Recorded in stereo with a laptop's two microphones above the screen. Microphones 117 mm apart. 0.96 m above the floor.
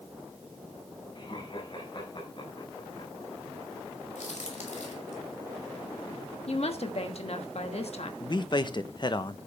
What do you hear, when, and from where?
1.1 s laughter: 45° left (ahead or behind), 4.5 m
4.2 s a crack: 80° left, 2.5 m
6.5 s a woman speaking: 60° left (ahead or behind), 1.2 m
8.2 s a man speaking: 40° left (ahead or behind), 0.7 m